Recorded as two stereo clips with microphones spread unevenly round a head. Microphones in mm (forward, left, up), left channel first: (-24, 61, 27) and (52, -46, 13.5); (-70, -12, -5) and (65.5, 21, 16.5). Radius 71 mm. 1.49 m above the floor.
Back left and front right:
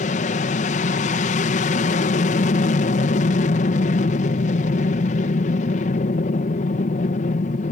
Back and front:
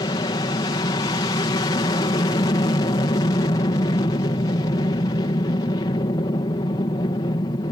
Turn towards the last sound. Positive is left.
turn(degrees=140)